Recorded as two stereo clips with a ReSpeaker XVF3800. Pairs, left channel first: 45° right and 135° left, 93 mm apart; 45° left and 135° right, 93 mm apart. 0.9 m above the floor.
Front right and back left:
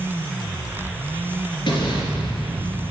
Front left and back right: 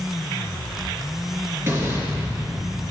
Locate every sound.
1.7 s an explosion: 75° right, 3 m